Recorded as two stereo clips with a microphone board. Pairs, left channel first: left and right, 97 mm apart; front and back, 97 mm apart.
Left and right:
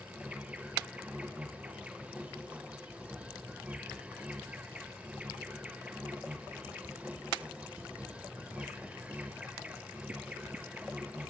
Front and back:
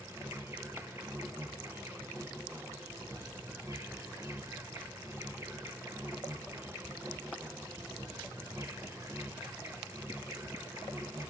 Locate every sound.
0.0 s an insect: 150° right, 1.1 m